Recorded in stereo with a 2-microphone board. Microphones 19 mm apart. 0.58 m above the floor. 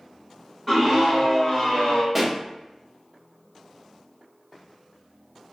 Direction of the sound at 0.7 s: 5° right (ahead or behind).